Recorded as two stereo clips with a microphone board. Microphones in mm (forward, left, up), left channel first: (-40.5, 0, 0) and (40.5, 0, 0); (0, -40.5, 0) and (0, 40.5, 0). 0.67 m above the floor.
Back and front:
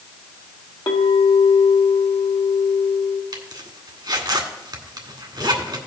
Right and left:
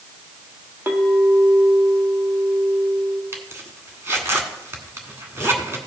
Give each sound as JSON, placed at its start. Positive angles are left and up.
{"t": 0.9, "sound": "a clink", "azimuth_deg": 155, "distance_m": 1.5}
{"t": 3.3, "sound": "a zipper", "azimuth_deg": 30, "distance_m": 1.6}